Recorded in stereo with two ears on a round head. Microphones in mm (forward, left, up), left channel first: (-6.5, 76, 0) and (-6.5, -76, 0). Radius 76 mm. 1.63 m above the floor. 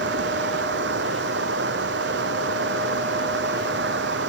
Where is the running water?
70° right (ahead or behind).